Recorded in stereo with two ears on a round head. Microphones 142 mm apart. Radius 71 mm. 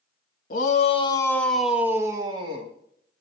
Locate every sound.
0.5 s a shout: 55° left (ahead or behind), 1.7 m; by 2.7 s 35° right (ahead or behind), 2.5 m